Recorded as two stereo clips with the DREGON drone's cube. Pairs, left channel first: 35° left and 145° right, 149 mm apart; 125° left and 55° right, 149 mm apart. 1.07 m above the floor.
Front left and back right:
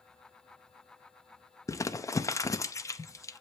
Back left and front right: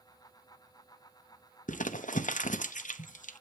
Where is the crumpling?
100° left, 0.8 m.